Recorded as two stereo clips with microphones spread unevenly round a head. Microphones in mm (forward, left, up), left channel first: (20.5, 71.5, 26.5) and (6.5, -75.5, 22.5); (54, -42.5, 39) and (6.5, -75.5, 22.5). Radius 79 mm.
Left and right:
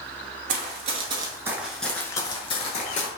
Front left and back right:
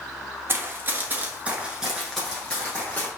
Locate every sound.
0.5 s running footsteps: 95° right, 1.2 m; by 3.1 s 75° left, 1.3 m